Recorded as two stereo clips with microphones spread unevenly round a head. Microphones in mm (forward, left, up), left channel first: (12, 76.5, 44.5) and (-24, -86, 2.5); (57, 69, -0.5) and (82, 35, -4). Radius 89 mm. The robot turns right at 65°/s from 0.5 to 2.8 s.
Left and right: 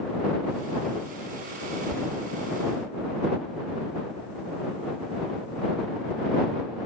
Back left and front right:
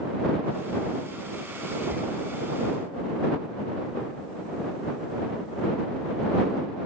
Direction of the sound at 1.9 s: 5° right.